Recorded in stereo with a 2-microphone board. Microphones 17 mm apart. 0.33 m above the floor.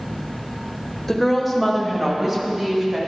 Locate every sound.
1.1 s a woman speaking: 10° left (ahead or behind), 0.9 m; by 3.0 s 30° right (ahead or behind), 1.8 m